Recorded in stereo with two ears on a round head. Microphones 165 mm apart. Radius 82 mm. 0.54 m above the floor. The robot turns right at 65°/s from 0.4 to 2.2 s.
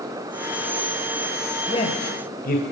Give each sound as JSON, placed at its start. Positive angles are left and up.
{"t": 1.7, "sound": "a man speaking", "side_deg": 25, "distance_m": 2.5}